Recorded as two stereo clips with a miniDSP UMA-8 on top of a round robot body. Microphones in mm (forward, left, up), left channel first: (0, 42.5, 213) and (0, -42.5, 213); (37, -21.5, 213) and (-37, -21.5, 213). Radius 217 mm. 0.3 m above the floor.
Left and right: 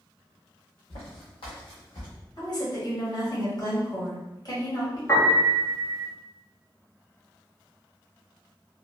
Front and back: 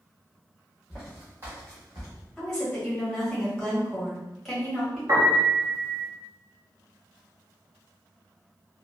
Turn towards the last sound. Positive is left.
turn(degrees=145)